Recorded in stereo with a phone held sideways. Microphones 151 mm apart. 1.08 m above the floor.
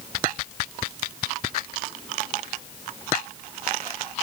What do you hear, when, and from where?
Only background noise.